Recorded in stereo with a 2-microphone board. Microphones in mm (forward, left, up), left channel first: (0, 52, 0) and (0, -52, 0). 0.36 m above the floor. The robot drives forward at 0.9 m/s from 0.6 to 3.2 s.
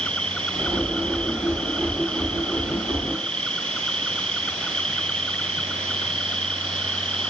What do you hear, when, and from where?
0.0 s an insect: 10° left (ahead or behind)